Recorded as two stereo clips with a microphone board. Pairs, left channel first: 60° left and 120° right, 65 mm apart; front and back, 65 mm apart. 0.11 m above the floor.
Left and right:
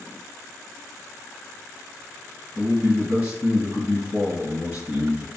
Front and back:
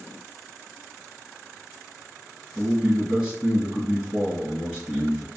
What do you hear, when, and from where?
2.5 s a man speaking: 125° right, 1.6 m